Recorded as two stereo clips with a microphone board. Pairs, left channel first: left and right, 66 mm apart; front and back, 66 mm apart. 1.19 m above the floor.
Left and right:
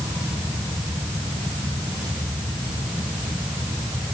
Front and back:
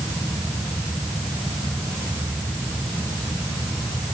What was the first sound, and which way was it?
Only background noise.